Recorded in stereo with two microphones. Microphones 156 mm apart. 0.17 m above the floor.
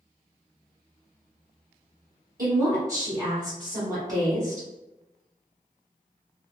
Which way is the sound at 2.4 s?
25° right (ahead or behind).